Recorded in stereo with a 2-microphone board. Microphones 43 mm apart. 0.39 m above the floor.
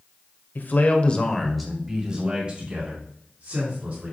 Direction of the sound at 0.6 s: 50° left (ahead or behind).